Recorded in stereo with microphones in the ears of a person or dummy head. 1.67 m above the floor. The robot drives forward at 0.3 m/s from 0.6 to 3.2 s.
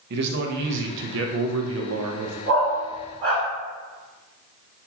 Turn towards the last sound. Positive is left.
turn(degrees=-45)  # may be behind; listen again after turning